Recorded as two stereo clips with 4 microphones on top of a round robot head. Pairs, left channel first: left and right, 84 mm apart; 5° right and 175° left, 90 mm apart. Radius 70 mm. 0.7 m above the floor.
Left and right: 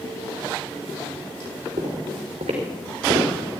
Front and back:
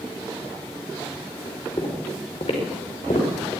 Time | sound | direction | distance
1.8 | footsteps | 60° right | 4.5 m